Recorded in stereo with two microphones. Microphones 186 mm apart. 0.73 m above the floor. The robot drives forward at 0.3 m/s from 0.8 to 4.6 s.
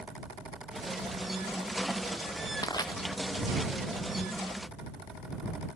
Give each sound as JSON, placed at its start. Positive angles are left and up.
{"t": 2.6, "sound": "crushing", "side_deg": 20}